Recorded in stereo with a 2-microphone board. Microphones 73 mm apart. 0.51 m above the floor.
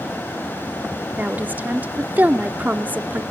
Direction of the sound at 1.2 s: 25° right (ahead or behind).